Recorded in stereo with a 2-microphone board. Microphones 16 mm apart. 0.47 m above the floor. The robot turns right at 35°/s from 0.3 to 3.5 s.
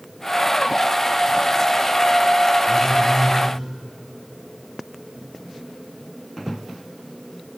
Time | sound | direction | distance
2.7 | a phone buzzing | 30° left (ahead or behind) | 9 m